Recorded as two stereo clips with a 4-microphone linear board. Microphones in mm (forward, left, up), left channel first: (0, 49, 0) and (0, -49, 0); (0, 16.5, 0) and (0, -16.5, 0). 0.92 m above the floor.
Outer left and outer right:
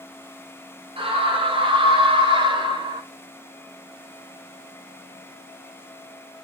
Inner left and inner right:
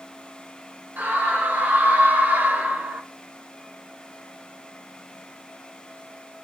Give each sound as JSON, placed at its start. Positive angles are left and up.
{"t": 1.0, "sound": "a scream", "side_deg": -75, "distance_m": 4.0}